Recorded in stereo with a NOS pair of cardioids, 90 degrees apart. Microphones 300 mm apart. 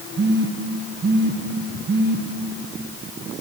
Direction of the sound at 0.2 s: 35° right.